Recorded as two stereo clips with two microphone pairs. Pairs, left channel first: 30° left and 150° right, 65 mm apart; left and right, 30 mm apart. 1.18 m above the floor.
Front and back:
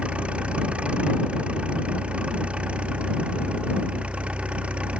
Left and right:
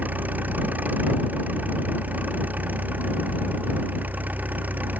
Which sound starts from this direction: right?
An engine running, at 0.0 s.